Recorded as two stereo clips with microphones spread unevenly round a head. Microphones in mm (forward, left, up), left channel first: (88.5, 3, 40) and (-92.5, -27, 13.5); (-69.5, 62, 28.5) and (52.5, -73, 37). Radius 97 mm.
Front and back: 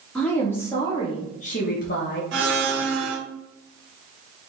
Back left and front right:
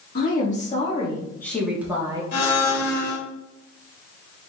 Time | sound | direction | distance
0.1 | a woman speaking | 100° left | 1.8 m
2.3 | a blender | 165° left | 1.6 m